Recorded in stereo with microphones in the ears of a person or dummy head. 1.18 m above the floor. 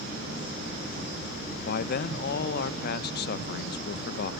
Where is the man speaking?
55° left (ahead or behind), 0.6 m.